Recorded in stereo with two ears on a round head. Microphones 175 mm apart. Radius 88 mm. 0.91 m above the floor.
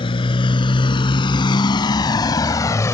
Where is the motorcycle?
30° left (ahead or behind); by 2.9 s 15° left (ahead or behind).